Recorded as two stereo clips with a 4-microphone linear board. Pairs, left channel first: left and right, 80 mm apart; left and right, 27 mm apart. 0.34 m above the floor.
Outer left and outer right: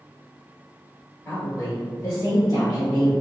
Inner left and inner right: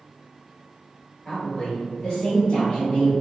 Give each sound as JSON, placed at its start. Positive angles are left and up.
{"t": 1.2, "sound": "a woman speaking", "side_deg": 30, "distance_m": 1.7}